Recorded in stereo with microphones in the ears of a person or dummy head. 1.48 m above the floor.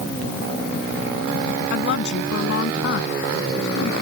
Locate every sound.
1.7 s a woman speaking: 60° left (ahead or behind)